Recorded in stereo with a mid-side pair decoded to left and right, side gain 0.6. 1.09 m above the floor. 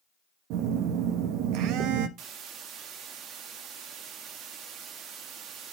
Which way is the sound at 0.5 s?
70° right.